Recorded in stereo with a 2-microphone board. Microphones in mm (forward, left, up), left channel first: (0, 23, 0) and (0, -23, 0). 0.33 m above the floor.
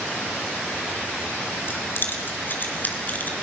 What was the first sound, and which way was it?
Keys jangling, 50° left (ahead or behind).